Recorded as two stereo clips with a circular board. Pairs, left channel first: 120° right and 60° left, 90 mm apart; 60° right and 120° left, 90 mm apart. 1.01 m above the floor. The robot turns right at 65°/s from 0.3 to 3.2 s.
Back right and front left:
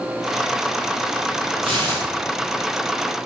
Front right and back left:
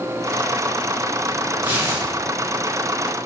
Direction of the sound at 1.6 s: 45° left.